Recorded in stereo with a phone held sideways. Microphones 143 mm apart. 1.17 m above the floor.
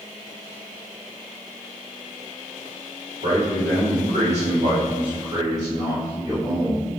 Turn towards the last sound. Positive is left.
turn(degrees=15)  # may be behind; listen again after turning